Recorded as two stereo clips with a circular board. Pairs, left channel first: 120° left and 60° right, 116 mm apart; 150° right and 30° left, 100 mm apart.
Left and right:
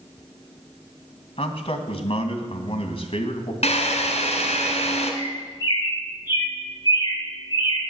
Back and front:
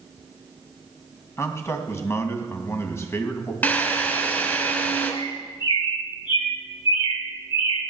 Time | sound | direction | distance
1.4 | a man speaking | 150° left | 2.5 m
3.6 | a drill | 140° left | 3 m
5.2 | a bird | straight behind | 8.5 m